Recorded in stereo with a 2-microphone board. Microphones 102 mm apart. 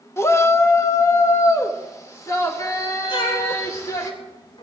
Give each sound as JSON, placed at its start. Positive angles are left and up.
{"t": 0.2, "sound": "a shout", "side_deg": 25, "distance_m": 0.9}
{"t": 3.1, "sound": "a cat meowing", "side_deg": 55, "distance_m": 2.0}